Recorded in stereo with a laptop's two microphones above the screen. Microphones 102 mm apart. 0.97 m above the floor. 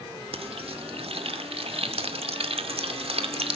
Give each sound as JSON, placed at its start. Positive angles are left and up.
{"t": 0.3, "sound": "frying", "side_deg": -70, "distance_m": 2.0}